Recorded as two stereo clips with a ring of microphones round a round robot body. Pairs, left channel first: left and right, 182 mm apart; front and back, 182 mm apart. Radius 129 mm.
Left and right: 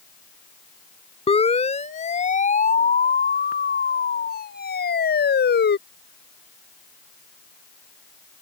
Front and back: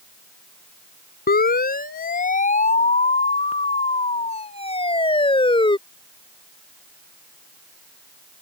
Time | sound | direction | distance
1.3 | a siren | 35° left | ?